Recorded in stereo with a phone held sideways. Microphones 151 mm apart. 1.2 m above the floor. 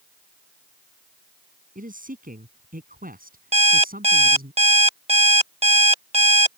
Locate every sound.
1.8 s a man speaking: 60° right (ahead or behind); by 4.5 s 70° right (ahead or behind)
3.5 s an alarm clock: 40° right (ahead or behind)